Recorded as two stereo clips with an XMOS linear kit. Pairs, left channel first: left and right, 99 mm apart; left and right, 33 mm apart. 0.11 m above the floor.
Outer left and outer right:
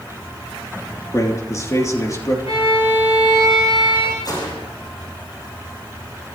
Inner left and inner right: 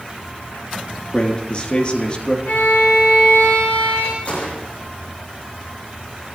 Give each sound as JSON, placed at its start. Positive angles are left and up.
{"t": 1.1, "sound": "a man speaking", "side_deg": 35, "distance_m": 3.5}
{"t": 2.5, "sound": "a violin", "side_deg": 75, "distance_m": 6.5}
{"t": 4.2, "sound": "a gunshot", "side_deg": 45, "distance_m": 5.5}